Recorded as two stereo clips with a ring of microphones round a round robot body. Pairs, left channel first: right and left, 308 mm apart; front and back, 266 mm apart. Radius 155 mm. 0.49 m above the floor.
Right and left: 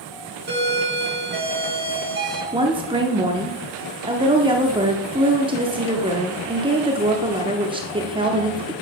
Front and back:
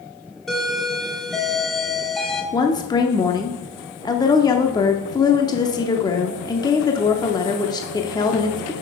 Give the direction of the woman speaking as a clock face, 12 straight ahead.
10 o'clock.